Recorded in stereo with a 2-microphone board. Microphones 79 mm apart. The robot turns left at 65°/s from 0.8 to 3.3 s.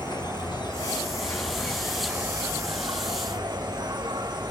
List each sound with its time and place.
0.0 s an insect: 75° left, 1.2 m; by 4.5 s 90° right, 1.2 m